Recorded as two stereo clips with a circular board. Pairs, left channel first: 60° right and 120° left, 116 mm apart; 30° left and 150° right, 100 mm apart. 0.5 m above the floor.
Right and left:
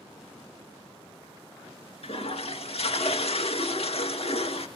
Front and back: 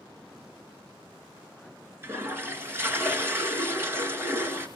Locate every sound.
2.0 s a toilet flushing: 85° right, 1.9 m